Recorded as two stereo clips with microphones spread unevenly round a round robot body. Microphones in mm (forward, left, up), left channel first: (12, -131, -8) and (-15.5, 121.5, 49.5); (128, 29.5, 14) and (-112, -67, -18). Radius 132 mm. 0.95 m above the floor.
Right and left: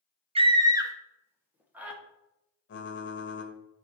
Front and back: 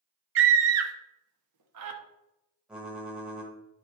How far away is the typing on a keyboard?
About 1.5 m.